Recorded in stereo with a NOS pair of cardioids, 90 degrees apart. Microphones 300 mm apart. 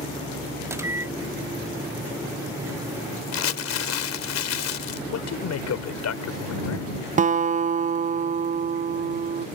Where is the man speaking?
60° left.